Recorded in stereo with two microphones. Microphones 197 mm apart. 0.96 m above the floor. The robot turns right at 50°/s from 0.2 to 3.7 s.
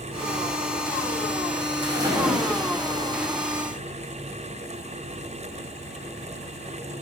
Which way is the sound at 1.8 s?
25° right.